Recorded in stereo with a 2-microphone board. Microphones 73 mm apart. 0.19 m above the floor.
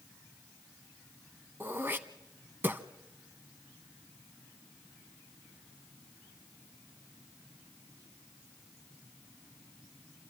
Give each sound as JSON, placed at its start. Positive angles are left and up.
{"t": 1.6, "sound": "throat clearing", "side_deg": -30, "distance_m": 0.8}